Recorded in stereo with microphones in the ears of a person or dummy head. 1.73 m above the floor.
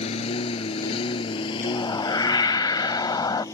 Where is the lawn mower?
40° left (ahead or behind); by 3.5 s 20° left (ahead or behind).